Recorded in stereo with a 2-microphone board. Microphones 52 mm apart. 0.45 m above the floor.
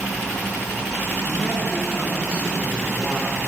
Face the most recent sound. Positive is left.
turn(degrees=-30)  # may be behind; listen again after turning